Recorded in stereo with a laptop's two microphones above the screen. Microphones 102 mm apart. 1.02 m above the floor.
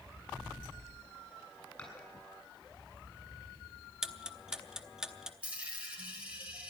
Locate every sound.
1.8 s dishes clattering: 15° left (ahead or behind), 7 m
4.0 s ticking: 5° right (ahead or behind), 0.7 m
5.4 s a dropped coin: 15° right (ahead or behind), 3.5 m